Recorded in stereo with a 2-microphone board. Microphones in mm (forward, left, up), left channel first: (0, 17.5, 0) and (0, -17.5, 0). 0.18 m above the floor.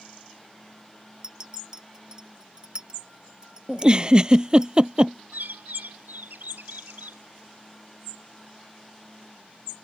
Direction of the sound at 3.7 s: 25° right (ahead or behind).